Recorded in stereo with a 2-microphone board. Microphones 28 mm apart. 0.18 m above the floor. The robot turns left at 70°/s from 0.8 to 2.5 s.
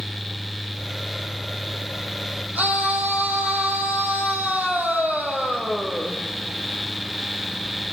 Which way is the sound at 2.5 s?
75° right (ahead or behind).